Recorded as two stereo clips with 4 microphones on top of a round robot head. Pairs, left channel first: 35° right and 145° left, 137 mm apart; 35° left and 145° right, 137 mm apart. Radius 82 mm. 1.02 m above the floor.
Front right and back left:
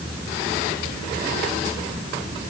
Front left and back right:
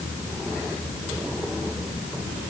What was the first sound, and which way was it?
Only background noise.